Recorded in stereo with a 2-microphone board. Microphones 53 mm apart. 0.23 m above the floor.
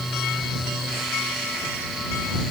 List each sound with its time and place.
Only background noise.